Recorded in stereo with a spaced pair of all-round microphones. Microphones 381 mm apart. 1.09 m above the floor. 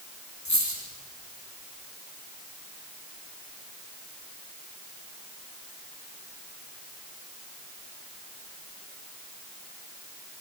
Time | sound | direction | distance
0.5 | a dropped coin | 45° left (ahead or behind) | 8.5 m